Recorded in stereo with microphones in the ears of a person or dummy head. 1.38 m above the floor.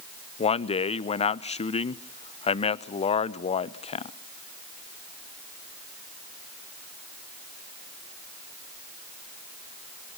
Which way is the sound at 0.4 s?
30° left (ahead or behind).